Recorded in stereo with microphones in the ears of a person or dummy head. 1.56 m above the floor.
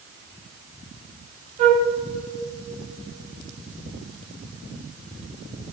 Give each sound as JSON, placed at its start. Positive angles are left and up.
{"t": 1.6, "sound": "a flute", "side_deg": -35, "distance_m": 1.6}